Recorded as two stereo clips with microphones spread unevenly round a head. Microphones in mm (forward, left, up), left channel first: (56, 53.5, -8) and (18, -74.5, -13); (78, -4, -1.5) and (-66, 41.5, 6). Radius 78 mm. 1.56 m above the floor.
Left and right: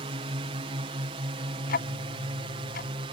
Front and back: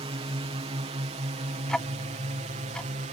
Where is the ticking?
70° left.